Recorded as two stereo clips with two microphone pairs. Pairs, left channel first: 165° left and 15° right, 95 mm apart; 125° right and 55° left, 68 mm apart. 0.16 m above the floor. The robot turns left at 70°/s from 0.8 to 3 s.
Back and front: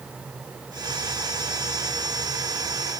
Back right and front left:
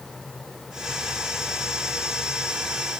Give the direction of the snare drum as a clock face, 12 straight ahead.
No snare drum in this recording.